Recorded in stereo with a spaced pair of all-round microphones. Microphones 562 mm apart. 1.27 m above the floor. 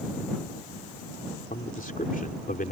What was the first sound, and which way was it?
A man speaking, 15° left (ahead or behind).